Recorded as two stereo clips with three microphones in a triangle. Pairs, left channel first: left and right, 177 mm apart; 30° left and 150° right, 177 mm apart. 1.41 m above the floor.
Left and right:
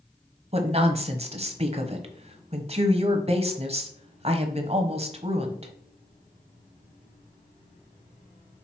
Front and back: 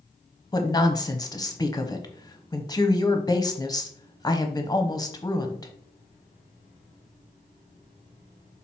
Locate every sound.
0.5 s a woman speaking: 40° right, 1.0 m